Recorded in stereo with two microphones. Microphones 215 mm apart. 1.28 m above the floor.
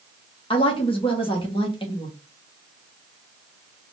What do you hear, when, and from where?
0.5 s a woman speaking: 25° left (ahead or behind), 1.5 m